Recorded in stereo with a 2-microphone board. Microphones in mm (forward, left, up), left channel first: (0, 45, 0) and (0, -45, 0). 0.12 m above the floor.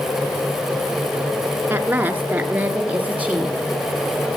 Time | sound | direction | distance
1.7 | a woman speaking | 20° right (ahead or behind) | 1.2 m